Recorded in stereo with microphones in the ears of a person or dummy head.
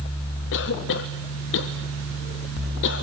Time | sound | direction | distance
0.5 | a cough | 65° left (ahead or behind) | 1.3 m